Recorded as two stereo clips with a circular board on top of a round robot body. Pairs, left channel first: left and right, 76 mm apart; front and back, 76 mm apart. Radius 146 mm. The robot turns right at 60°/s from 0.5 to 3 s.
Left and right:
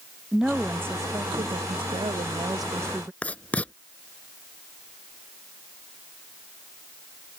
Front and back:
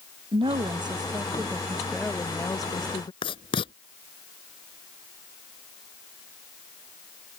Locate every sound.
0.3 s a woman speaking: 175° right; by 3.1 s 25° right
3.2 s writing: 15° left